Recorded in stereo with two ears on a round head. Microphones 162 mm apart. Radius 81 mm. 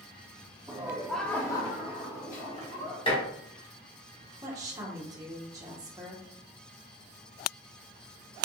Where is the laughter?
20° right (ahead or behind), 0.7 m; by 3.0 s 55° left (ahead or behind), 1.2 m.